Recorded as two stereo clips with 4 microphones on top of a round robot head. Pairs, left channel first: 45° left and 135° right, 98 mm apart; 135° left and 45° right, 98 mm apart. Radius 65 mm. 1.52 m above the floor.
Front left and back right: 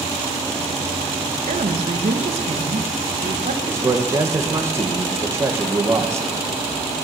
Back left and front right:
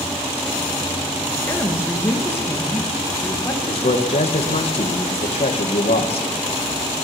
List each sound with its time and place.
1.5 s a woman speaking: 155° right, 2 m
3.7 s a man speaking: 160° left, 2 m